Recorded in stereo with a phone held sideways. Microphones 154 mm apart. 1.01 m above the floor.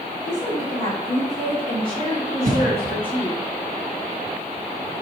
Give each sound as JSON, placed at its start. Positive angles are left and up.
{"t": 0.2, "sound": "a woman speaking", "side_deg": -55, "distance_m": 3.5}
{"t": 2.5, "sound": "a cough", "side_deg": -65, "distance_m": 1.4}